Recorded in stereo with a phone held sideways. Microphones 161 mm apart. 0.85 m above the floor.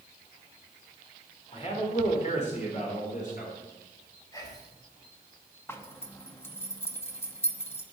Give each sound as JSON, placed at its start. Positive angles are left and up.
{"t": 1.5, "sound": "a man speaking", "side_deg": 40, "distance_m": 3.0}
{"t": 4.3, "sound": "whispering", "side_deg": 20, "distance_m": 3.5}
{"t": 5.7, "sound": "a zipper", "side_deg": 15, "distance_m": 1.0}